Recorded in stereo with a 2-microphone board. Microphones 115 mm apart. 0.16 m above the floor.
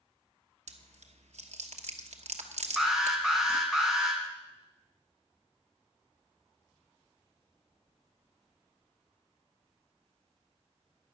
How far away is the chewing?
About 1.0 m.